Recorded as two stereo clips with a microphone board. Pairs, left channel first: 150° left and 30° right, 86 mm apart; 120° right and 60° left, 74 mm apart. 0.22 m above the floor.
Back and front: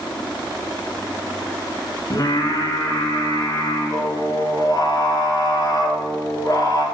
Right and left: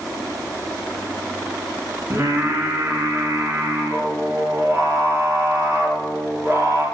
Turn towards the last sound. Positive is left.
turn(degrees=110)